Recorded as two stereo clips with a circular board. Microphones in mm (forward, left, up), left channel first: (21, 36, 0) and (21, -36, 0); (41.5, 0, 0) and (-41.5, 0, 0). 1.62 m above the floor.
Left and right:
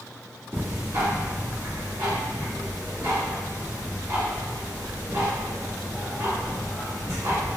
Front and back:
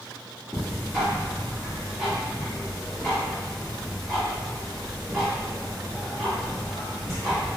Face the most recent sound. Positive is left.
turn(degrees=-90)